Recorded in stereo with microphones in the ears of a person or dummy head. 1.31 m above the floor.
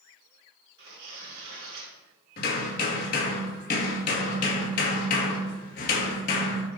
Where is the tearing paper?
65° right (ahead or behind), 3 m.